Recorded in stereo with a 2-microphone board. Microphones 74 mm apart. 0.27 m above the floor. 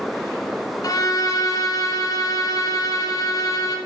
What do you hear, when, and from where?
0.8 s a violin: 50° left (ahead or behind), 1.8 m